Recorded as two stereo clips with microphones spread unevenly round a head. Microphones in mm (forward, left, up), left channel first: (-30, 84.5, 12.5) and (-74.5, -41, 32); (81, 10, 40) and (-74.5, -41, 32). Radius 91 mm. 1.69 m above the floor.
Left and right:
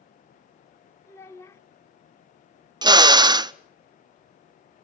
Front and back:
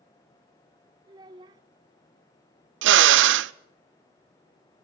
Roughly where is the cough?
No cough in this recording.